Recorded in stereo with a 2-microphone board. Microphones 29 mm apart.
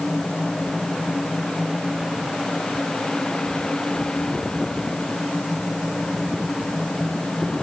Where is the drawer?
I don't hear a drawer.